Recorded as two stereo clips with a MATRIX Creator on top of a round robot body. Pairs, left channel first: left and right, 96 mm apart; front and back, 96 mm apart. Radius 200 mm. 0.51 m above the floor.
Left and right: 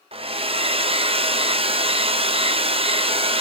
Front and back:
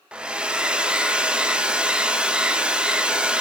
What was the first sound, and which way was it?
A hair dryer, 100° right.